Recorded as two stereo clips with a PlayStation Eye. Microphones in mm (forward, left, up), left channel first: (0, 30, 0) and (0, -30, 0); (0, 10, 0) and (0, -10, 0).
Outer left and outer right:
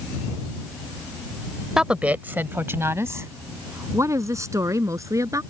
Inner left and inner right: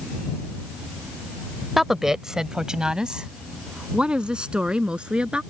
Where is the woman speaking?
10° right (ahead or behind); by 5.4 s 65° right (ahead or behind).